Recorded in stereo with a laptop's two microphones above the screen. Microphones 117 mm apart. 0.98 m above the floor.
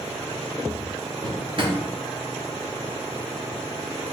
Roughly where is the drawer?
Right.